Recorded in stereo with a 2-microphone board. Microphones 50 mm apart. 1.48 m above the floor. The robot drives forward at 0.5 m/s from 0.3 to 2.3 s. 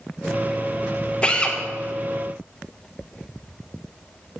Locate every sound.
1.2 s a drill: 20° left (ahead or behind), 1.3 m